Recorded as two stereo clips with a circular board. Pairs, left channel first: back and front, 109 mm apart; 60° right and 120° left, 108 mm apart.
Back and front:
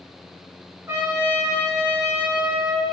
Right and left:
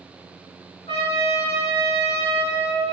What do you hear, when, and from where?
0.9 s a trumpet: 65° right, 2 m